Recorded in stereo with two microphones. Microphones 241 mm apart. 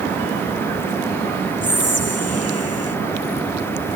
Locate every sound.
1.6 s whispering: 80° left